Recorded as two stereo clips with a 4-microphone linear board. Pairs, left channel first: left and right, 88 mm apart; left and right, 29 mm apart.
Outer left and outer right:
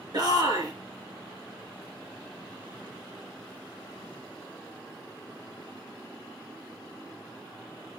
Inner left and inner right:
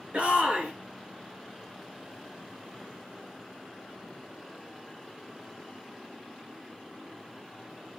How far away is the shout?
About 3 m.